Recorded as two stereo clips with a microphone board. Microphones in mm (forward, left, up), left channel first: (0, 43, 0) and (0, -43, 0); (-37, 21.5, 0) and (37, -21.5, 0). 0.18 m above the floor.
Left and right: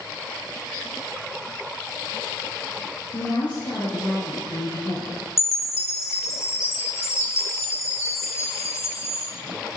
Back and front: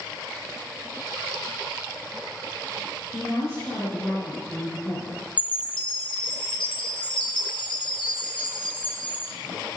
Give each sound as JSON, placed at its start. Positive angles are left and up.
{"t": 3.1, "sound": "a woman speaking", "azimuth_deg": 100, "distance_m": 3.0}
{"t": 5.4, "sound": "a chime", "azimuth_deg": 145, "distance_m": 3.0}